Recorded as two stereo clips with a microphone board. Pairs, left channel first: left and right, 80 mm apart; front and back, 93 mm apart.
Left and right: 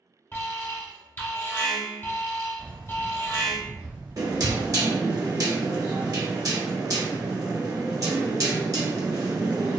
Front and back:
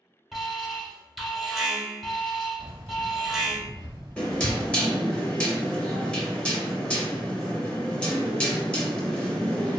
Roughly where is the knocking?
Right.